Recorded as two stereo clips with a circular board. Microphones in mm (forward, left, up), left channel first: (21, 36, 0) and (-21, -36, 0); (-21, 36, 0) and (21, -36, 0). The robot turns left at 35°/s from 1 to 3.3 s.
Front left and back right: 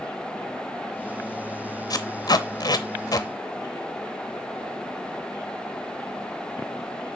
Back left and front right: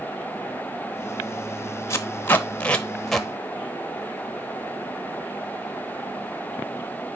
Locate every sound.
1.9 s tape being pulled: 75° left, 0.8 m; by 3.3 s 25° left, 0.8 m